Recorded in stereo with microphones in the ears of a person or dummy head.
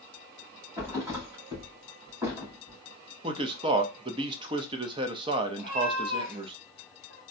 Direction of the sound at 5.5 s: 40° right (ahead or behind).